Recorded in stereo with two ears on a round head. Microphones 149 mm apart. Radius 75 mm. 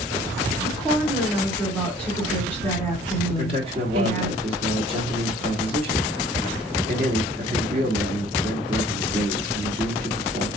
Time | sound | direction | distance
0.6 | a woman speaking | 10° left (ahead or behind) | 1.9 m
3.3 | a man speaking | 35° right (ahead or behind) | 1.3 m